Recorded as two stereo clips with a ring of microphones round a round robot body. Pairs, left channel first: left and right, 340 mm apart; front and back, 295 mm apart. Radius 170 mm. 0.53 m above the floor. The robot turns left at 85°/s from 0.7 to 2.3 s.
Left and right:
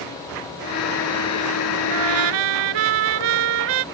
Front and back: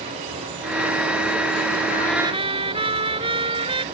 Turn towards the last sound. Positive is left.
turn(degrees=-105)